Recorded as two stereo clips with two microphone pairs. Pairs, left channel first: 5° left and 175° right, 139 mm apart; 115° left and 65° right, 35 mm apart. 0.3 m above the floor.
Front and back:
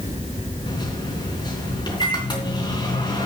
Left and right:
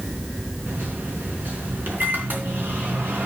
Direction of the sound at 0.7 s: 50° right.